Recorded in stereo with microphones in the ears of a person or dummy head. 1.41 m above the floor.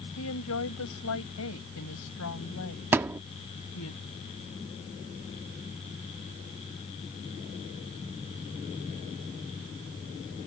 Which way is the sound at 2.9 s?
15° right (ahead or behind).